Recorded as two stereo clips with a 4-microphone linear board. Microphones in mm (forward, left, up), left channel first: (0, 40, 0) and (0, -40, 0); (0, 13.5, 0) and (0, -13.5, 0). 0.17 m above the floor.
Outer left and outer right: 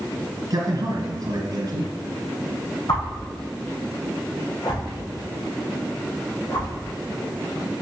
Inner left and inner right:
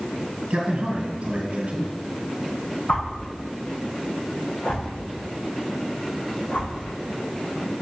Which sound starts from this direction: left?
A whoosh, at 2.9 s.